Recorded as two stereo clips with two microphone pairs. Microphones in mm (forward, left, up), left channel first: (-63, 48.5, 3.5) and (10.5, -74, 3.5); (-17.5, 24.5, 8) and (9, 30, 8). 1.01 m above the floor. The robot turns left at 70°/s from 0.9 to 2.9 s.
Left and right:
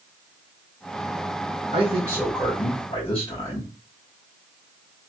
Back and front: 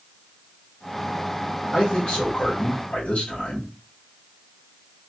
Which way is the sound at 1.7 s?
105° right.